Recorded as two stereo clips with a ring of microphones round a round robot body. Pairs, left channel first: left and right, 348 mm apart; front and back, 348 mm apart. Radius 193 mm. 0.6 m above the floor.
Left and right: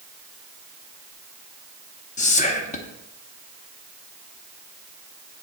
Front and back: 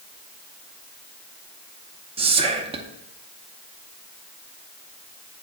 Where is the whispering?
130° left, 0.6 m.